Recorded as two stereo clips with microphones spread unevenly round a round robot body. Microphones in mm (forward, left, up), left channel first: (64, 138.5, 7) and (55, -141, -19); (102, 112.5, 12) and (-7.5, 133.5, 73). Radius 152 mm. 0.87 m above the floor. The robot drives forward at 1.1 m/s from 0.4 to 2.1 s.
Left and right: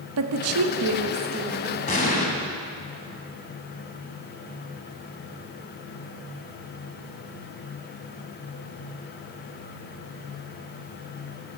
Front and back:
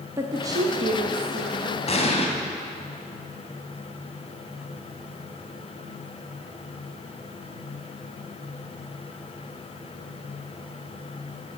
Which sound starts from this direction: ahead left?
An explosion, at 1.9 s.